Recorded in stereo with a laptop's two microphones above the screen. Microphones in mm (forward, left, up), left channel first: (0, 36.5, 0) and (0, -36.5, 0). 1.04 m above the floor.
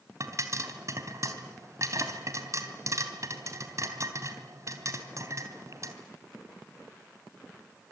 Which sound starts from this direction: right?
A pop, at 0.2 s.